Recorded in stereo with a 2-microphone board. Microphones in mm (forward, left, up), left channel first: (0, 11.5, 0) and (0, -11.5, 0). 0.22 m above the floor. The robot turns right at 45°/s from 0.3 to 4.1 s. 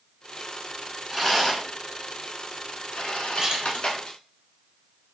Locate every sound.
1.1 s a rattle: centre (ahead or behind), 0.8 m; by 4.2 s 40° left (ahead or behind), 0.8 m
3.4 s a splash: 25° right (ahead or behind), 0.9 m; by 3.8 s 35° right (ahead or behind), 0.9 m